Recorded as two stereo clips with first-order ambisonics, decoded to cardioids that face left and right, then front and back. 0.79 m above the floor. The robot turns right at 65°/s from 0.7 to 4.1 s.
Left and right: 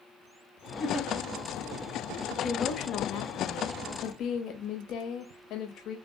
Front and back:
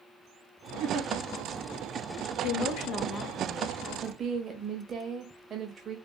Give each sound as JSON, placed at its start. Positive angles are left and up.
{"t": 0.8, "sound": "a giggle", "azimuth_deg": 145, "distance_m": 1.4}
{"t": 2.4, "sound": "a woman speaking", "azimuth_deg": 15, "distance_m": 1.0}